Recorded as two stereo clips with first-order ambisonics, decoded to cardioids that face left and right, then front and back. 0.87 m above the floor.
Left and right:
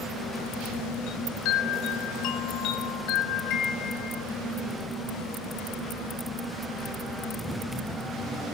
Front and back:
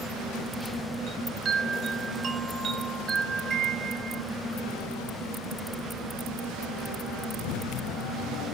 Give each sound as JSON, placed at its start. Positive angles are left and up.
{"t": 1.1, "sound": "a chime", "azimuth_deg": 120, "distance_m": 0.6}